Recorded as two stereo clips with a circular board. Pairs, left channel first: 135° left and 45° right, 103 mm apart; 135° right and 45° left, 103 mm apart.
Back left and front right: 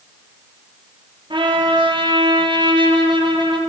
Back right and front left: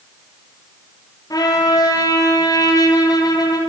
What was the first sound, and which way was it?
A trumpet, 85° right.